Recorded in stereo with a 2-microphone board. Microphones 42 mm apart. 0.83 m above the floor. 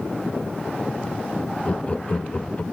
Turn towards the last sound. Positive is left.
turn(degrees=30)  # may be behind; listen again after turning